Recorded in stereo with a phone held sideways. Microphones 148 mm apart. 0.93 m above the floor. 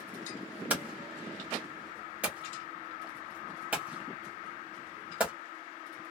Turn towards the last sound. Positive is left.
turn(degrees=-10)  # may be behind; listen again after turning